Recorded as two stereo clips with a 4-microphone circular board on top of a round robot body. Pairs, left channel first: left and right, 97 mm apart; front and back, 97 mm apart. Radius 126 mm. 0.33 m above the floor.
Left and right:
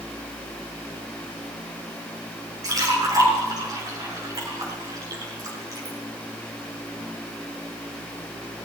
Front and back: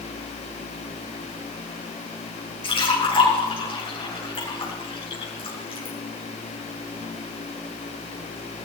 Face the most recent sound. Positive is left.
turn(degrees=-35)